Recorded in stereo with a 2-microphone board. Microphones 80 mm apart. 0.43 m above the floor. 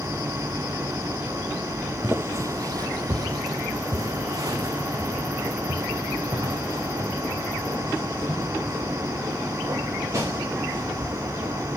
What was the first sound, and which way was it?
Footsteps, 25° right (ahead or behind).